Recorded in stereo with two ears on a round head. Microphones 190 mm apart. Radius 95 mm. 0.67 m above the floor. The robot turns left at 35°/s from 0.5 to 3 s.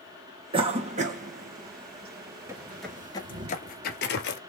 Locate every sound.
0.5 s a cough: 25° right (ahead or behind), 1.1 m; by 3.5 s 40° right (ahead or behind), 1.1 m
2.5 s footsteps: 15° right (ahead or behind), 0.6 m; by 4.4 s 55° left (ahead or behind), 1.1 m